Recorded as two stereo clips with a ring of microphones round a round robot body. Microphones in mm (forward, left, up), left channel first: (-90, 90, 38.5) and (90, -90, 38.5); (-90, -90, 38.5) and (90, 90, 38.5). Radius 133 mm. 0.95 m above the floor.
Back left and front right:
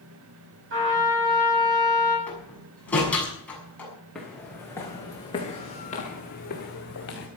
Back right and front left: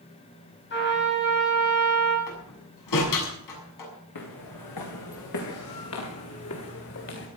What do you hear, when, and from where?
0.7 s a trumpet: 90° right, 7 m
2.3 s a door slam: 140° right, 7 m
4.2 s footsteps: 135° right, 5.5 m; by 7.3 s straight behind, 5.5 m